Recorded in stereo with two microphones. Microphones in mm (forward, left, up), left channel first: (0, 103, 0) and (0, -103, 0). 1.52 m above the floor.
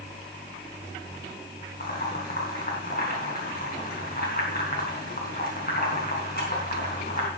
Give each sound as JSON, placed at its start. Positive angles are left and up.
{"t": 1.8, "sound": "boiling", "side_deg": 45, "distance_m": 4.0}